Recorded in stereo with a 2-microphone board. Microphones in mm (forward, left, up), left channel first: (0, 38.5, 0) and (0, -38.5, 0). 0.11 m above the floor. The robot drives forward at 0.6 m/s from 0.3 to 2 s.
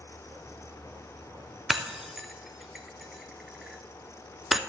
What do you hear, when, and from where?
1.7 s breaking glass: 5° right (ahead or behind), 0.7 m